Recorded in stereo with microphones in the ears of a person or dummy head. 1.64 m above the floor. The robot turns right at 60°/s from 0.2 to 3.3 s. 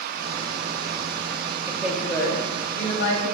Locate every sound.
1.7 s a woman speaking: 10° right, 3 m; by 3.3 s 85° left, 3 m